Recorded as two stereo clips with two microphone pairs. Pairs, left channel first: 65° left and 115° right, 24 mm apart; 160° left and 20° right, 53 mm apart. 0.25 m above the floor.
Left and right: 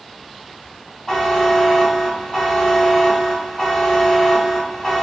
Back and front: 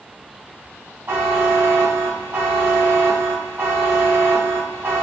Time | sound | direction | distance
1.1 | a buzzer | straight ahead | 2.5 m